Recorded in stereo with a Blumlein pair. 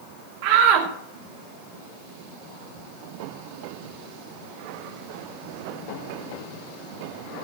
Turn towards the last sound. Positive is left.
turn(degrees=-40)